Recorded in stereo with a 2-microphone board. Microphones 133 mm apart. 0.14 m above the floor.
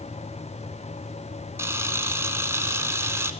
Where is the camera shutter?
20° right (ahead or behind), 1.0 m.